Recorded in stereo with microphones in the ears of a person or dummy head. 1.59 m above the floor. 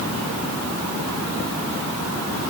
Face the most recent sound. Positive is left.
No sound to turn to.